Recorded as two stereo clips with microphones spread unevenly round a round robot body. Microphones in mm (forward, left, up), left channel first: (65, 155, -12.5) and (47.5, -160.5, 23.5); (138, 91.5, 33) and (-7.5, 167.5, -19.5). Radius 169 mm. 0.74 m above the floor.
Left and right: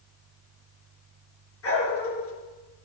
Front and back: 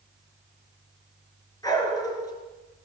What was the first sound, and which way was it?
A dog barking, 40° left.